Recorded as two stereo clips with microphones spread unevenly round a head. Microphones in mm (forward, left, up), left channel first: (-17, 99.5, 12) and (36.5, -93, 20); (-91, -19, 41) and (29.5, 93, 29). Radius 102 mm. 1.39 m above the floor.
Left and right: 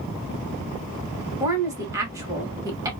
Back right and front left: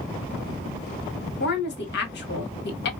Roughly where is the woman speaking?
Behind right.